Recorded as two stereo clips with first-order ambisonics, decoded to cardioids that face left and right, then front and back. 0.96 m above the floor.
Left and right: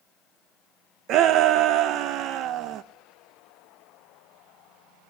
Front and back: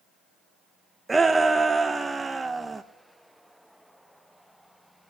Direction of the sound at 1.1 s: 100° right.